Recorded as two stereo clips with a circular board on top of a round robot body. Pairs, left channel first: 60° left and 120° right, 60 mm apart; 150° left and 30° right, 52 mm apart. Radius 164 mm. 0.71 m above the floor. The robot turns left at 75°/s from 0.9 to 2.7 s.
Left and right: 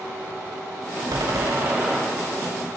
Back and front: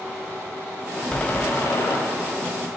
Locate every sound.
1.1 s a door slam: 135° right, 4.5 m; by 2.0 s 160° left, 4.5 m